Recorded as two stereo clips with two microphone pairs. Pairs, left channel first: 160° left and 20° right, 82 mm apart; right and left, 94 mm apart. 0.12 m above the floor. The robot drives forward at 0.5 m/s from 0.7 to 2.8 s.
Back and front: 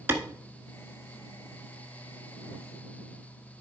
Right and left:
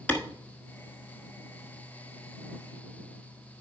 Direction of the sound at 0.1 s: 40° right.